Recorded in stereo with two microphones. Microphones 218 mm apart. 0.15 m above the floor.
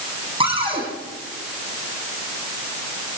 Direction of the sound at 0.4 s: 30° right (ahead or behind).